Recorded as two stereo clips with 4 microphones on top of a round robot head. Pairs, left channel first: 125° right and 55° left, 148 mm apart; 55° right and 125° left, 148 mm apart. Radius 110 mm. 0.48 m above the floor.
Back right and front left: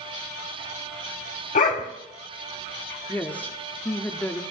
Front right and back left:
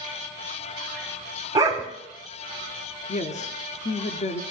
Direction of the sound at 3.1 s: 50° right.